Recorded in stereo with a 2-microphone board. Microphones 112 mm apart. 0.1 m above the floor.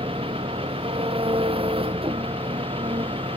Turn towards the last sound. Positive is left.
turn(degrees=-55)  # may be behind; listen again after turning